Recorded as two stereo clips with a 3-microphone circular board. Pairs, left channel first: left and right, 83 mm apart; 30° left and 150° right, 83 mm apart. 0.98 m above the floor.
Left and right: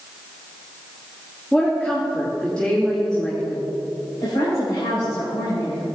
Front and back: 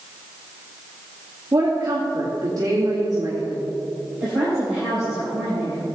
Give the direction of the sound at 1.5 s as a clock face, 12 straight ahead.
6 o'clock.